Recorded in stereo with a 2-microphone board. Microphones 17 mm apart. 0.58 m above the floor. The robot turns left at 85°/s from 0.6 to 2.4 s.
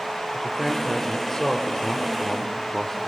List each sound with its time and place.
0.3 s a man speaking: 150° right, 1.4 m; by 3.1 s 55° left, 1.4 m